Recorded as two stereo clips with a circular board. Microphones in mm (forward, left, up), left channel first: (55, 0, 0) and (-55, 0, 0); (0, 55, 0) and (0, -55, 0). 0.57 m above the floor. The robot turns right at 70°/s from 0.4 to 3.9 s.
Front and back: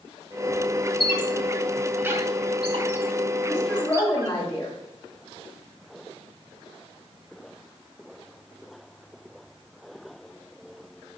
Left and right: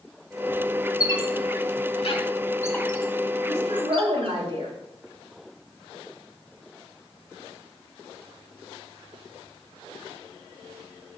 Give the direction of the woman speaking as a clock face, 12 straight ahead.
3 o'clock.